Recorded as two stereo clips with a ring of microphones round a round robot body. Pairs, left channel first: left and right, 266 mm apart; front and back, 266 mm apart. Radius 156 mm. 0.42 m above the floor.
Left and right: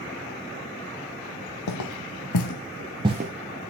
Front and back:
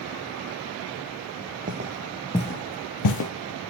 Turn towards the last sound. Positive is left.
turn(degrees=-25)